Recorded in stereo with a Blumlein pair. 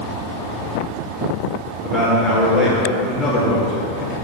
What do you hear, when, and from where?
1.8 s a man speaking: 10° left, 1.8 m